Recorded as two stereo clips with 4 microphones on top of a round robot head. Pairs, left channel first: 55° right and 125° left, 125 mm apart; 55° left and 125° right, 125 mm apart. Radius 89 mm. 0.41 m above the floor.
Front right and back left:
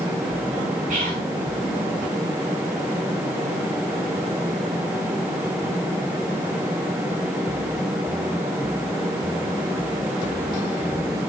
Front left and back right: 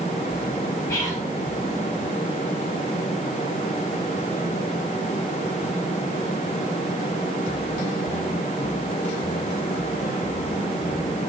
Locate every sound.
0.9 s whispering: 120° left, 5.5 m